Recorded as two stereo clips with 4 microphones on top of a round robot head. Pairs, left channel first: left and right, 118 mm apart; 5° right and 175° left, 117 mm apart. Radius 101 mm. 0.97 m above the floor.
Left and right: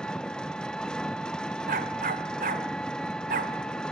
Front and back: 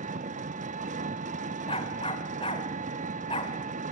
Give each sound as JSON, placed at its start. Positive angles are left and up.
{"t": 0.0, "sound": "an engine running", "azimuth_deg": 175, "distance_m": 0.9}
{"t": 1.7, "sound": "a dog barking", "azimuth_deg": -65, "distance_m": 1.3}